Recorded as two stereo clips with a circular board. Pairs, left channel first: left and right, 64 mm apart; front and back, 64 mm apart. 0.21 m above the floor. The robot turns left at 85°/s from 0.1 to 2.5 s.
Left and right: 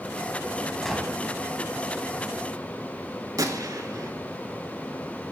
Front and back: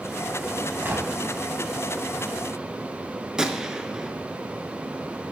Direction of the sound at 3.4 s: 100° right.